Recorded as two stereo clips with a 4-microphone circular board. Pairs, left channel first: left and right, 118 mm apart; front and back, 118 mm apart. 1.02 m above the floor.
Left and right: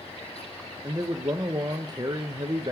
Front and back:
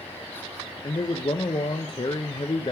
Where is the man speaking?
40° right, 0.6 m.